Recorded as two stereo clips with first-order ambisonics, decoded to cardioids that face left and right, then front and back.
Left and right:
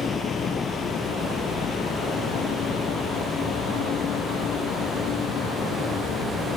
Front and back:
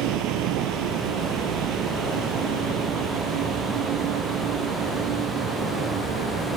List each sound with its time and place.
0.0 s a vehicle: 160° left; by 6.6 s 140° left